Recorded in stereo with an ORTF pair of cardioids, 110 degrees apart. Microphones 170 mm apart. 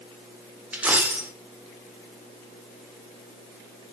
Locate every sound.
0.7 s a dropped coin: 10° right, 1.8 m